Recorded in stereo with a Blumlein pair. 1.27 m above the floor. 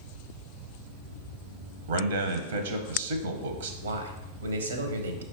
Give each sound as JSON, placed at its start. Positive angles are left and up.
{"t": 1.9, "sound": "a man speaking", "azimuth_deg": -60, "distance_m": 0.6}
{"t": 3.8, "sound": "a man speaking", "azimuth_deg": -70, "distance_m": 0.7}